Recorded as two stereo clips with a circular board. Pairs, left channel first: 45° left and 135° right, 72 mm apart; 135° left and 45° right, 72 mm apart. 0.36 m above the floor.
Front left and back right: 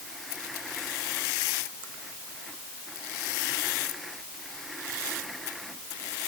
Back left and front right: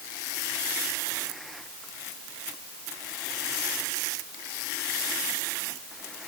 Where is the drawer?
No drawer in this recording.